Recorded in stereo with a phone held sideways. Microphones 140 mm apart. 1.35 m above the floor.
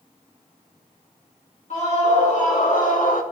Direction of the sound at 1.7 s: 55° left (ahead or behind).